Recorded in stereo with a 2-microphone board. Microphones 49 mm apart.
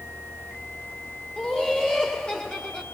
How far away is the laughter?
About 2 m.